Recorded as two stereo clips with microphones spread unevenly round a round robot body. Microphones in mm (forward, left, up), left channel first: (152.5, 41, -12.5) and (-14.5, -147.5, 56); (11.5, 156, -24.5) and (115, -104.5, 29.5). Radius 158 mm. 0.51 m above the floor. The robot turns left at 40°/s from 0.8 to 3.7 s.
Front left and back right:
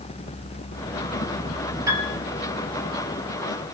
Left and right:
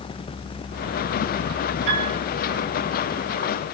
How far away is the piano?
About 4.5 m.